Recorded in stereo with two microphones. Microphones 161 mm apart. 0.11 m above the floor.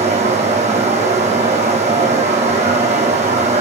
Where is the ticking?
I don't hear ticking.